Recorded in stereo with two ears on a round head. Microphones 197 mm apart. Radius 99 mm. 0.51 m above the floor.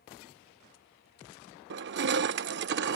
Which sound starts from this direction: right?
Crushing, at 1.7 s.